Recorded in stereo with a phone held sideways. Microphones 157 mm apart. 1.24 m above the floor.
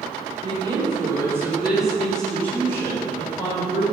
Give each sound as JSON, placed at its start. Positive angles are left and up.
{"t": 0.4, "sound": "a woman speaking", "side_deg": -35, "distance_m": 3.5}